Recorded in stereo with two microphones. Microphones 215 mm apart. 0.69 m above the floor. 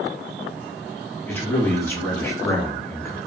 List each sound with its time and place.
1.3 s a man speaking: 10° left (ahead or behind), 0.7 m